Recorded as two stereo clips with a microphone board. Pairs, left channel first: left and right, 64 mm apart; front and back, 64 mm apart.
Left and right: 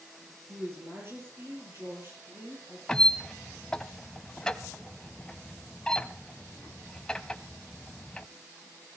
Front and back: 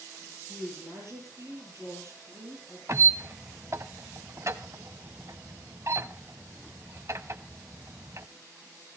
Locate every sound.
0.5 s a woman speaking: 140° right, 6.5 m
2.9 s a squeak: 165° left, 0.9 m